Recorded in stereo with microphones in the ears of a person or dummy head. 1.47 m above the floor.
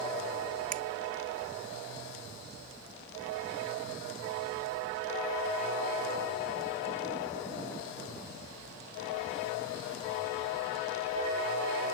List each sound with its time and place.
0.7 s a finger snap: 40° right (ahead or behind)